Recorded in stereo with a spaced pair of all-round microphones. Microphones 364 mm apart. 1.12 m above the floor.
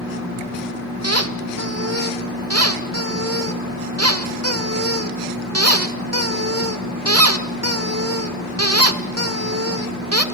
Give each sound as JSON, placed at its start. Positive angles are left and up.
{"t": 1.0, "sound": "a squeak", "side_deg": -40, "distance_m": 1.3}